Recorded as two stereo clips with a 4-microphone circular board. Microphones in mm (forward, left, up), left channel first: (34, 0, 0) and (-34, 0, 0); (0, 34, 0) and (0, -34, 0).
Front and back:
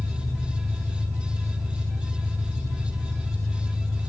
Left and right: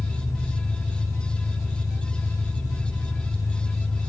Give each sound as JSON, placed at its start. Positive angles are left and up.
{"t": 0.0, "sound": "an engine running", "azimuth_deg": 95, "distance_m": 2.5}